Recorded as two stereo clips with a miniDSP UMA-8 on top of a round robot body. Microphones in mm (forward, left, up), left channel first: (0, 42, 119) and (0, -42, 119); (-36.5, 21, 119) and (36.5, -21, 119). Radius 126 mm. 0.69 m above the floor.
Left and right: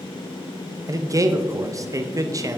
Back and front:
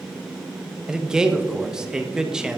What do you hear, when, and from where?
0.9 s a man speaking: 105° right, 0.8 m